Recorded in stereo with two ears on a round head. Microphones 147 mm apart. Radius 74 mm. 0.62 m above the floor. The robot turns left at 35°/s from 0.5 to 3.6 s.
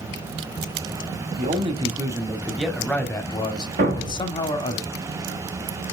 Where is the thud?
45° right (ahead or behind), 2 m.